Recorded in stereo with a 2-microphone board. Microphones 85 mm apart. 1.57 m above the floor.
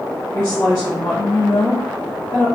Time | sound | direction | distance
0.3 | a woman speaking | 40° left (ahead or behind) | 1.9 m